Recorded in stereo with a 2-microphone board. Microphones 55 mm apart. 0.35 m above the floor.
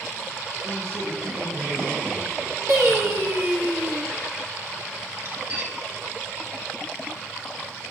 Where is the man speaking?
85° right, 8.5 m; by 3.4 s 80° right, 8 m.